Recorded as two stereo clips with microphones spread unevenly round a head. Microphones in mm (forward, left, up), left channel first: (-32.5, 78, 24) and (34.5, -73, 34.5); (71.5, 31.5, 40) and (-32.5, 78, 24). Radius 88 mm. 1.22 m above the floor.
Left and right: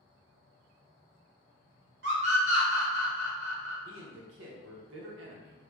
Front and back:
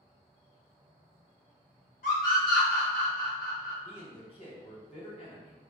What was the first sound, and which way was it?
A scream, 45° right.